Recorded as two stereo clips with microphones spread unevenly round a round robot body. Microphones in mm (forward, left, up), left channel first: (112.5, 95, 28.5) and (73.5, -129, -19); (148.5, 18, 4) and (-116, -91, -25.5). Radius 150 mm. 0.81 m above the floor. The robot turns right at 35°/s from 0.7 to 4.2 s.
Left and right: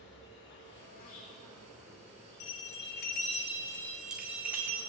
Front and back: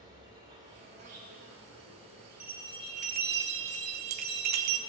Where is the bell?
120° left, 1.1 m; by 4.8 s straight behind, 1.1 m.